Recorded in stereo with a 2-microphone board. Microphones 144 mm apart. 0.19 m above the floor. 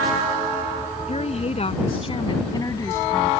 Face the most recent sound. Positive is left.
turn(degrees=5)  # may be behind; listen again after turning